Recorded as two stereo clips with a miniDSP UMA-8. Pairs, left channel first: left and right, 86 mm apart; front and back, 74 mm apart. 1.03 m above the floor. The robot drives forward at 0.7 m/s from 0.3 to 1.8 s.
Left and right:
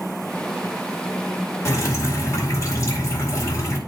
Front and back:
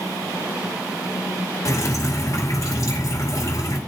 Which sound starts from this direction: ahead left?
Dripping, at 1.6 s.